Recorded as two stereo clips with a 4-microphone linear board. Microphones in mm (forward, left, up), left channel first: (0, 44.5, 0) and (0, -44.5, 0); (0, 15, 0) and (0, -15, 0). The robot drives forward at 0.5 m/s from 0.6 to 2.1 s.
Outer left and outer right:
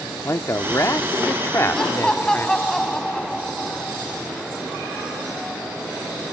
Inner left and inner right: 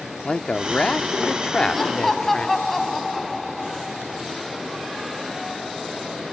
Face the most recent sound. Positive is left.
turn(degrees=10)  # may be behind; listen again after turning